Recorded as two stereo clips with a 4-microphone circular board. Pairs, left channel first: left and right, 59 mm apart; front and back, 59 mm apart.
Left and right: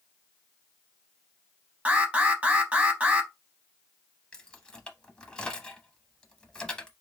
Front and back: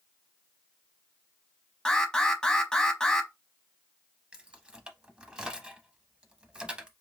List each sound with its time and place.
1.9 s an alarm: 60° right, 0.8 m
4.3 s keys jangling: 140° left, 0.7 m